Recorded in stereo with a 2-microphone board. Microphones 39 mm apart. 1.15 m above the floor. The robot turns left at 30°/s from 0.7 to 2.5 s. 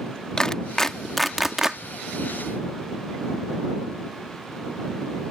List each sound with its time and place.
0.4 s a clap: 15° left (ahead or behind); by 1.8 s 15° right (ahead or behind)